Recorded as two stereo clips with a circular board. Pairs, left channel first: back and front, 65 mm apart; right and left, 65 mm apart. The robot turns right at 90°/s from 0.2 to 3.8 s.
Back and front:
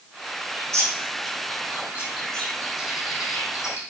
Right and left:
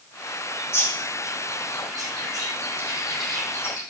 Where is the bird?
65° right, 4 m; by 3.8 s 130° right, 4 m.